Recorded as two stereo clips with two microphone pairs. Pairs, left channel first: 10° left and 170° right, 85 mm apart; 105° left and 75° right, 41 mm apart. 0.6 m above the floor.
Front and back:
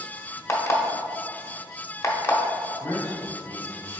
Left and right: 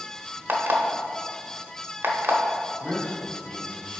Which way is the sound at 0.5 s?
45° right.